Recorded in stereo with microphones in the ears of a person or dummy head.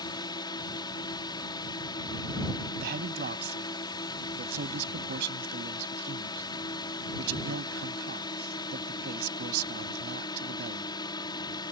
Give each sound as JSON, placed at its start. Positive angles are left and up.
{"t": 0.0, "sound": "a drone", "side_deg": 25}
{"t": 2.8, "sound": "a man speaking", "side_deg": -65}